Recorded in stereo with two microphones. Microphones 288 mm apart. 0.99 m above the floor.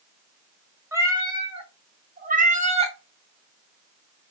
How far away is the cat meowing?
About 1.2 m.